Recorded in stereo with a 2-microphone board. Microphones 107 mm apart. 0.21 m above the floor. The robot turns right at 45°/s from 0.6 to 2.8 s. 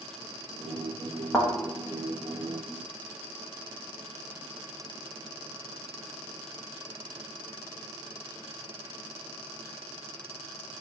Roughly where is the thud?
Centre.